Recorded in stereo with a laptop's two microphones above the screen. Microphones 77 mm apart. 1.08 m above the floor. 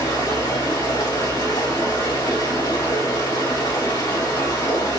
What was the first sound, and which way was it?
Running water, 80° left.